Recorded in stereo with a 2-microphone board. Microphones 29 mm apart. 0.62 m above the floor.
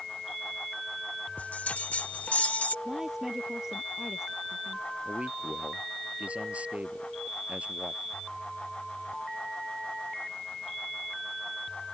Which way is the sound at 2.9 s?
20° right (ahead or behind).